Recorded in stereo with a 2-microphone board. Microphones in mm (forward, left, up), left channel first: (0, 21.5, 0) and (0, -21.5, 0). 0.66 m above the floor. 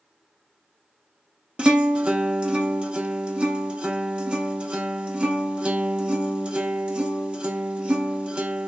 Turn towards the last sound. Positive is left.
turn(degrees=-25)  # may be behind; listen again after turning